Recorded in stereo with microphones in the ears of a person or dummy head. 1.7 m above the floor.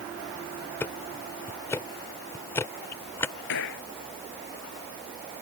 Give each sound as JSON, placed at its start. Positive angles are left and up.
{"t": 0.8, "sound": "ticking", "side_deg": 10}
{"t": 3.5, "sound": "a gunshot", "side_deg": 70}